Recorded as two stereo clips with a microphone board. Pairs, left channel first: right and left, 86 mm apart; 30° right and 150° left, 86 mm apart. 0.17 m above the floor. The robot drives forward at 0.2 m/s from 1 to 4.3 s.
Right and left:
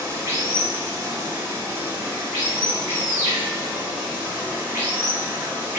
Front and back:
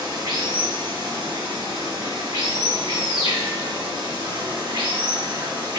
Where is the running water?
145° left, 1.2 m; by 5.8 s 160° left, 1.7 m.